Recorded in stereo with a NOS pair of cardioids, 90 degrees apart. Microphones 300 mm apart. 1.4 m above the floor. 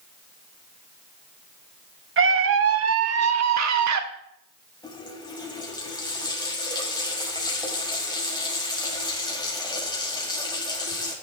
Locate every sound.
2.2 s a scream: 45° right, 2 m; by 4.0 s 70° right, 2.5 m
4.8 s a running tap: 15° left, 6 m